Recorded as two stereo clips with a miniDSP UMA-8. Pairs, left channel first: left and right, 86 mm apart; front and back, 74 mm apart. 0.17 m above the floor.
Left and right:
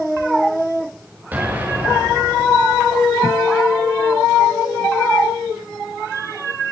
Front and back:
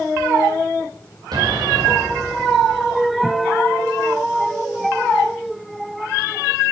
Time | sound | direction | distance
1.3 | an explosion | 160° right | 5 m